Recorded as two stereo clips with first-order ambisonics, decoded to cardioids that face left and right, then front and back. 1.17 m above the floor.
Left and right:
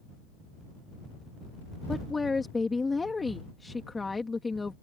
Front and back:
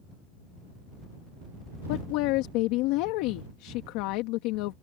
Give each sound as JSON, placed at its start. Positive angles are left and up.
{"t": 1.9, "sound": "a woman speaking", "azimuth_deg": 10}